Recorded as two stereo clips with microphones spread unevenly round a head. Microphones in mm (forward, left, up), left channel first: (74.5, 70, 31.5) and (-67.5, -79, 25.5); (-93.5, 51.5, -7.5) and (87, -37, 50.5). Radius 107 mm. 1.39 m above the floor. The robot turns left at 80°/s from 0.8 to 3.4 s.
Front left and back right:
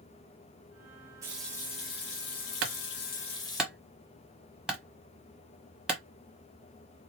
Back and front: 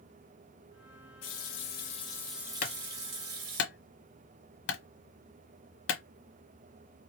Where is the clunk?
155° right, 1.2 m; by 6.0 s 140° left, 1.2 m.